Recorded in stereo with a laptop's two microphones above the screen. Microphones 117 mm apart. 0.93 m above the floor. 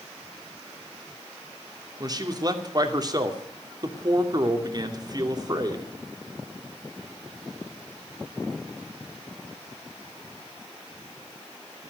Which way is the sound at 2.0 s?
35° right (ahead or behind).